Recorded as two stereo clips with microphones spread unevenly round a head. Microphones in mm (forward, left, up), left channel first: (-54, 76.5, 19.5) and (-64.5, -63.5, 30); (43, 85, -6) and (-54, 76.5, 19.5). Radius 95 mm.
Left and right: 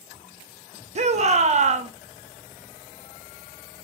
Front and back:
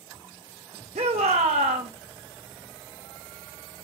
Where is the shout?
130° right, 1.2 m.